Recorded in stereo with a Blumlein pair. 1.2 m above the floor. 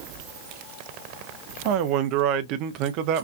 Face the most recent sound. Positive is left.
turn(degrees=-40)